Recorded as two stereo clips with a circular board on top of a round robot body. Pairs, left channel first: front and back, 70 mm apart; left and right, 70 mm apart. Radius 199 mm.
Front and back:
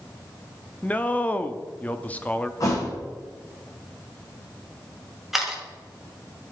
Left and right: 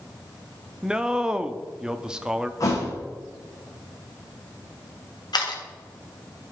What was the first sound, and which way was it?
A man speaking, 30° right.